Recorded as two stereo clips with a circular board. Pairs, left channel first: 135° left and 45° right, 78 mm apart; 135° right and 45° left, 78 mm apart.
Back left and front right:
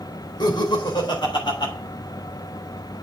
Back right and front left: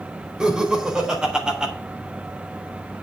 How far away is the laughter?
About 4 m.